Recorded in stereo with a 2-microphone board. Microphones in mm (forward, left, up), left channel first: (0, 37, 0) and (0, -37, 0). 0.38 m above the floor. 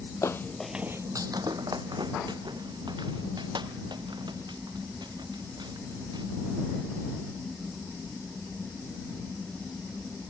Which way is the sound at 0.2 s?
45° left (ahead or behind).